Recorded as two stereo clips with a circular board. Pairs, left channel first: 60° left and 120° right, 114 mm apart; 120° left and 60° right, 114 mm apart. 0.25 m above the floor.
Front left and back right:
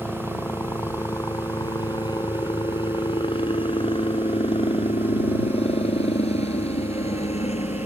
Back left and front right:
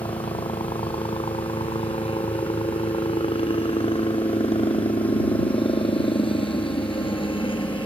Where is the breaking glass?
I don't hear breaking glass.